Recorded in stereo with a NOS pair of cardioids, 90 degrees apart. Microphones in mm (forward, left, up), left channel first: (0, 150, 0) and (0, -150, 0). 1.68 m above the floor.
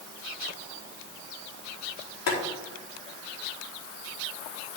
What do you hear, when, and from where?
2.3 s boiling: 65° left, 3.5 m